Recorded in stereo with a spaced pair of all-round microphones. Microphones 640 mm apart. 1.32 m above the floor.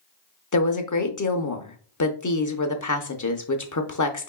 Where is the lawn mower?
I don't hear a lawn mower.